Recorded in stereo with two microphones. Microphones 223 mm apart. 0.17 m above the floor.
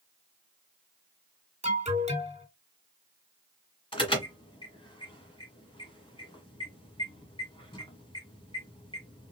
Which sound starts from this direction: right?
An alarm, at 1.6 s.